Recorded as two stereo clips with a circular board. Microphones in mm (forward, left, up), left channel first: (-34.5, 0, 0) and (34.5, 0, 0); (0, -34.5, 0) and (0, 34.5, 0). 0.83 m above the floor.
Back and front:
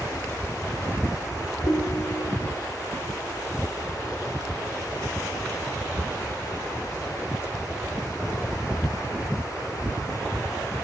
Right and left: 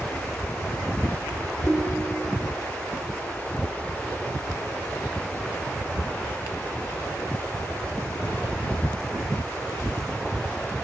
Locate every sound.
1.6 s a ringtone: 160° right, 1.7 m